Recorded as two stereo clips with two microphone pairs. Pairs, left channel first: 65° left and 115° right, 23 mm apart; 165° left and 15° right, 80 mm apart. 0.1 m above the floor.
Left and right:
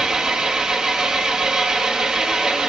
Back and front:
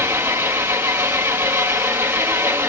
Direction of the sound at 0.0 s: 70° right.